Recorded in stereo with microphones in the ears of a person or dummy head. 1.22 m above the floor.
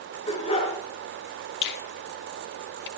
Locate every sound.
0.3 s a dog barking: 30° left (ahead or behind), 7 m
1.6 s a finger snap: 55° left (ahead or behind), 1.8 m